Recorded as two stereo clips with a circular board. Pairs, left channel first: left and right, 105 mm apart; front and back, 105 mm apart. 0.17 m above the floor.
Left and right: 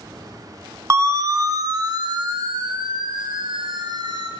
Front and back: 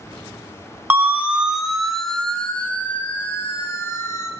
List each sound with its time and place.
0.9 s a siren: 125° right, 2.5 m; by 4.3 s 55° right, 4.5 m